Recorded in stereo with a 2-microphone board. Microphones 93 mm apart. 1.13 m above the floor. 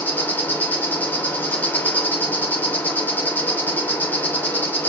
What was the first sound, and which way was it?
An insect, 20° left (ahead or behind).